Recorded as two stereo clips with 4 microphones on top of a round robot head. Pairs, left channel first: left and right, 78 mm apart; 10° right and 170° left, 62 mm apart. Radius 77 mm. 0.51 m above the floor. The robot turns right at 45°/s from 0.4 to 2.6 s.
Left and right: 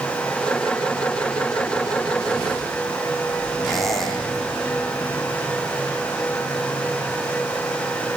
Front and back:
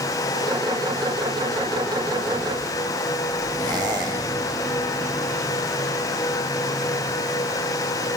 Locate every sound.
3.6 s a squeak: straight behind, 5.5 m